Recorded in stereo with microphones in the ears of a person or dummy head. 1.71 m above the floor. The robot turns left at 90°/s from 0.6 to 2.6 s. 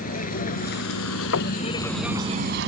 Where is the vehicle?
40° left (ahead or behind); by 2.7 s 55° right (ahead or behind).